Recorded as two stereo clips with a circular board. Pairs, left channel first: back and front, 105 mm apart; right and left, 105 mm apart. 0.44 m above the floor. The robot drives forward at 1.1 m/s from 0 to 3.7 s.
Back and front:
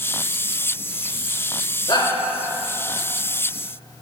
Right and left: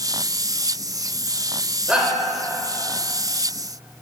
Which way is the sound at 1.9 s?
165° left.